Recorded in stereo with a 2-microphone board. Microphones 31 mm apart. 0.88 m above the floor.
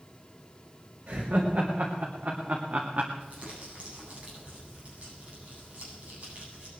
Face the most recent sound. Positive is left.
turn(degrees=-45)  # may be behind; listen again after turning